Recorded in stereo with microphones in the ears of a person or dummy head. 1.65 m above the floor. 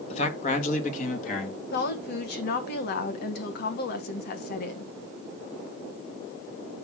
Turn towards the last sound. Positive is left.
turn(degrees=55)  # may be behind; listen again after turning